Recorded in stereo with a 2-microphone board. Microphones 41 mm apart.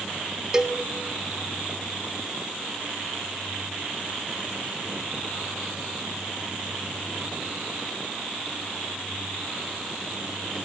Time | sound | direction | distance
0.5 | a cowbell | 20° right (ahead or behind) | 1.1 m